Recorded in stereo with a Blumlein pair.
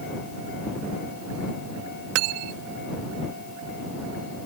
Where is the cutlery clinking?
40° right.